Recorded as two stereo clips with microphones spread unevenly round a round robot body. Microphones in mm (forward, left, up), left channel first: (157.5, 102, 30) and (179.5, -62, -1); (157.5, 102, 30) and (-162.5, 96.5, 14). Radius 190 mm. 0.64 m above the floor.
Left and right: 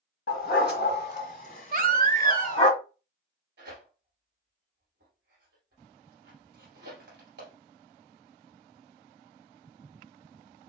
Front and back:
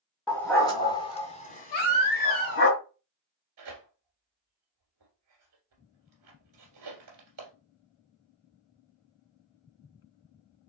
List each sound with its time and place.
0.3 s a dog barking: 85° left, 2 m; by 2.7 s 50° left, 2 m
1.7 s a baby crying: 40° right, 0.9 m
3.6 s tearing paper: 130° right, 1.6 m